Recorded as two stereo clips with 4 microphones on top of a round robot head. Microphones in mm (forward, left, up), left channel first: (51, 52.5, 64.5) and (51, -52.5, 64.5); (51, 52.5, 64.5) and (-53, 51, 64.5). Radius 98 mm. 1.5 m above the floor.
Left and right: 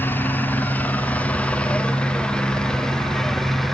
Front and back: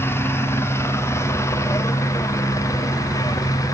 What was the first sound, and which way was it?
A helicopter, 40° left.